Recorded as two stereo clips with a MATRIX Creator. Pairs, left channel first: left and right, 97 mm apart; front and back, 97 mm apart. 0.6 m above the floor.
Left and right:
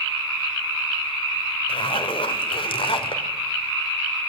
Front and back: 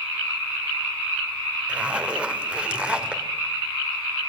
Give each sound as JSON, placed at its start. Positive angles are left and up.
{"t": 1.7, "sound": "a zipper", "azimuth_deg": 100, "distance_m": 2.0}